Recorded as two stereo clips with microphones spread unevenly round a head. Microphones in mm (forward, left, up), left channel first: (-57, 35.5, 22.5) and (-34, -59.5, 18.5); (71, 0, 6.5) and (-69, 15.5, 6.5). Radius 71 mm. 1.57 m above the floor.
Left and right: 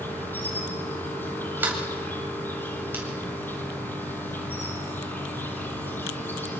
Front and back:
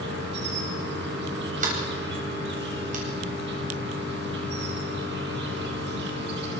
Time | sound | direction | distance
0.0 | an insect | 170° left | 6 m
1.6 | a sliding door | 145° right | 9 m